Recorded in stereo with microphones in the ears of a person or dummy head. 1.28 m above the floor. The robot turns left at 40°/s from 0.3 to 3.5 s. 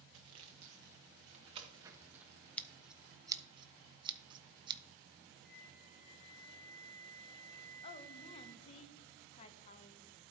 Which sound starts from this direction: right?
Sawing, at 0.1 s.